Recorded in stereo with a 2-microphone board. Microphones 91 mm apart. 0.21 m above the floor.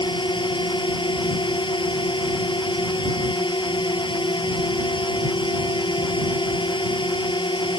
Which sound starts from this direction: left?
A drone, at 0.0 s.